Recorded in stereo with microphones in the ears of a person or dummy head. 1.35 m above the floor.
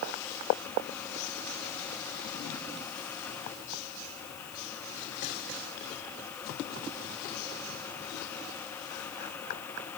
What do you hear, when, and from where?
Only background noise.